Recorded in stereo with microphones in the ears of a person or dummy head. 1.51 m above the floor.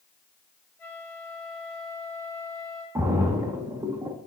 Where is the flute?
15° left (ahead or behind), 4.5 m.